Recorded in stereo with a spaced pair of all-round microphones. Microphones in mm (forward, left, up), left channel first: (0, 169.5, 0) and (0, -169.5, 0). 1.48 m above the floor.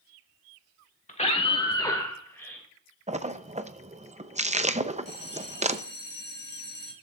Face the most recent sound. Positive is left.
turn(degrees=-30)  # may be behind; listen again after turning